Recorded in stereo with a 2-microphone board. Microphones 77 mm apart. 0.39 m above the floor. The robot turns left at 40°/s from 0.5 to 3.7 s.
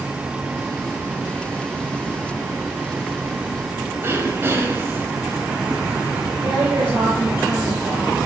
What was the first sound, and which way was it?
Throat clearing, 30° right (ahead or behind).